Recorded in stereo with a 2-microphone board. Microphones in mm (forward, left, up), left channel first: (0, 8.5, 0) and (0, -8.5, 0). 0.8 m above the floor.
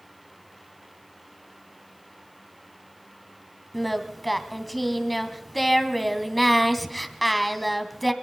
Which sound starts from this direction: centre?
Singing, at 3.7 s.